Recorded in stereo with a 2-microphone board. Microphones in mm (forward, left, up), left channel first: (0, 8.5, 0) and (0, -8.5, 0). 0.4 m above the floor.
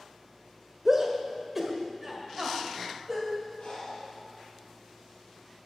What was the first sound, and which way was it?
A shout, 20° right (ahead or behind).